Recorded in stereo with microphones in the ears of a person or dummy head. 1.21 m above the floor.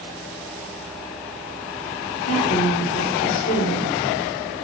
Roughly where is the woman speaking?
Left.